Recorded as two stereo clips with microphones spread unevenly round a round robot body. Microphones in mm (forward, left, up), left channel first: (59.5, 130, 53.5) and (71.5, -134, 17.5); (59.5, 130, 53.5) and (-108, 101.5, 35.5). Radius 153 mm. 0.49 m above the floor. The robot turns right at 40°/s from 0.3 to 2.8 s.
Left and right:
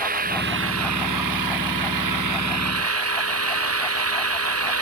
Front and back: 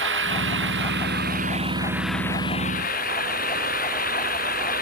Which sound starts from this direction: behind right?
An engine running, at 0.0 s.